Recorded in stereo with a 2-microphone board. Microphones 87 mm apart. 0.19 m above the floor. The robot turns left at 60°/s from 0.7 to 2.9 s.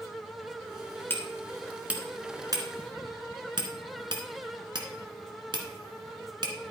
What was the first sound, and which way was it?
Hammering, 25° left (ahead or behind).